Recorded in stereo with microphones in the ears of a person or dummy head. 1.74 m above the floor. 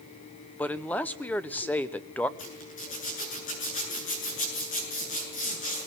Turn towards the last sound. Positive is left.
turn(degrees=35)  # may be behind; listen again after turning